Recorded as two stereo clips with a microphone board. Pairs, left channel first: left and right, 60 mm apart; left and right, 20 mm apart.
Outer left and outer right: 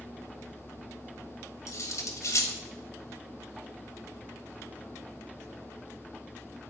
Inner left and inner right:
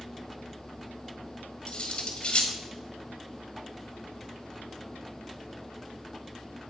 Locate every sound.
1.7 s cutlery clinking: 60° left (ahead or behind), 1.5 m